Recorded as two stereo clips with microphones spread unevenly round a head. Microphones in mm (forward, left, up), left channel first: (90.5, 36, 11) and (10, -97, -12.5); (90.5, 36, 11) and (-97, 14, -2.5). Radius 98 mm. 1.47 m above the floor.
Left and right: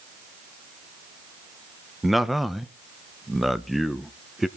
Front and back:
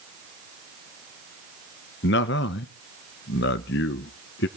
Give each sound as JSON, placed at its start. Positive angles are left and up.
{"t": 2.0, "sound": "a man speaking", "azimuth_deg": -30, "distance_m": 1.0}